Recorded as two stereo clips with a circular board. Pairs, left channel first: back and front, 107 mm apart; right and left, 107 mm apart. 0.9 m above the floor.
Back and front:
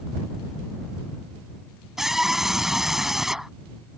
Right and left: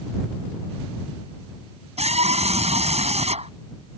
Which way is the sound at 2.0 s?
85° left.